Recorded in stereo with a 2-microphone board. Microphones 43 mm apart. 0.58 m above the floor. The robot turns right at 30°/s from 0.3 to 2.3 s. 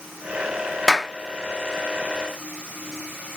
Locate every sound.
0.9 s a clap: 5° left (ahead or behind), 0.5 m; by 1.1 s centre (ahead or behind), 0.5 m